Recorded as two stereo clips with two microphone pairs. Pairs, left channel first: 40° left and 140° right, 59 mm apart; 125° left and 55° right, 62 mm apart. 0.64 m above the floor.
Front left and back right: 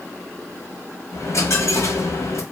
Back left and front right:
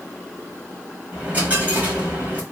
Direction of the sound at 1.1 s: 10° left.